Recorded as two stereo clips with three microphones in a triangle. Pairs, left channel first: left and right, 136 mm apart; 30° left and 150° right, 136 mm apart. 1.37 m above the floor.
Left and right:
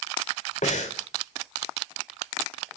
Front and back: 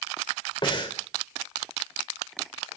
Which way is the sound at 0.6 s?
80° left.